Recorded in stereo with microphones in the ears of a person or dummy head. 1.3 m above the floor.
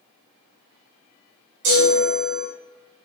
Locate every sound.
1.6 s a chime: 65° right (ahead or behind), 1.0 m